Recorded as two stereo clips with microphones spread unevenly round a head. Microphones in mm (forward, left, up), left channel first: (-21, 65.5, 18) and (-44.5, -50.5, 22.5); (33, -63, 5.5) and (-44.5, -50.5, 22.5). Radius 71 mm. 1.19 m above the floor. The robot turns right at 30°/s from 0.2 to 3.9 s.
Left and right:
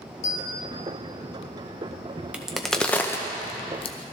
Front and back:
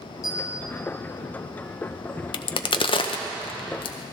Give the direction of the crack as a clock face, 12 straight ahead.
1 o'clock.